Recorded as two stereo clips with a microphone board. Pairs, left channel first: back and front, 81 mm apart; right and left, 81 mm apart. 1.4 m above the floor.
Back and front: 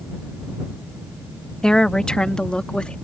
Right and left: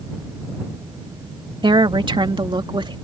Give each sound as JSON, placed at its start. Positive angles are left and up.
{"t": 1.6, "sound": "a woman speaking", "azimuth_deg": 100}